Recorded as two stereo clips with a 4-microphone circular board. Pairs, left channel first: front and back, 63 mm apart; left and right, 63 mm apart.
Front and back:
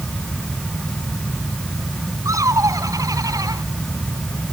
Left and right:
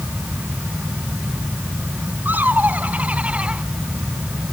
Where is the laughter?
150° right; by 3.6 s 160° right.